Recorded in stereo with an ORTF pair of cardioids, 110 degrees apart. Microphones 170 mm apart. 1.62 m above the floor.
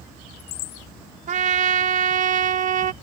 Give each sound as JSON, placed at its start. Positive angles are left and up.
{"t": 1.3, "sound": "a trumpet", "azimuth_deg": -50}